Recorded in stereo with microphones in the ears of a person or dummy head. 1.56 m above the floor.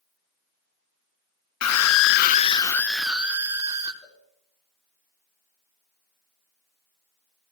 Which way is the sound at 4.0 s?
35° left (ahead or behind).